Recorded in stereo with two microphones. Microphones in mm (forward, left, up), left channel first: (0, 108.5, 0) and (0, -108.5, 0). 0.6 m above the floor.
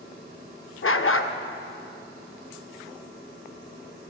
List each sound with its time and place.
0.8 s a dog barking: 70° left (ahead or behind), 0.6 m